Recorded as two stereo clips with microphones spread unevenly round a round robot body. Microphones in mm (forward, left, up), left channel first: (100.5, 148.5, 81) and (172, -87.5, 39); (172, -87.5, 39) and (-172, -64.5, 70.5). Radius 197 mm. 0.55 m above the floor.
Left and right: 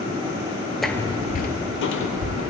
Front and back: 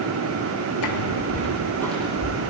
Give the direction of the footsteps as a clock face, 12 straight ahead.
11 o'clock.